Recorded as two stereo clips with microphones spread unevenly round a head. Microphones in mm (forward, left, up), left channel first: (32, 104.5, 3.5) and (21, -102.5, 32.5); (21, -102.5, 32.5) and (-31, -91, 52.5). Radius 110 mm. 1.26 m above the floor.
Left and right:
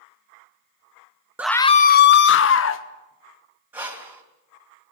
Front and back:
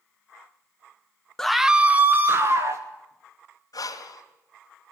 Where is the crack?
No crack in this recording.